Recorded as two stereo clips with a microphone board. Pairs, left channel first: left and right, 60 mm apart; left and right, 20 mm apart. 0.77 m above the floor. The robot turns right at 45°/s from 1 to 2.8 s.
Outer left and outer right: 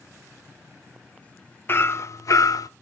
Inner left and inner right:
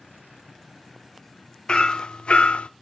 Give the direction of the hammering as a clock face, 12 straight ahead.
11 o'clock.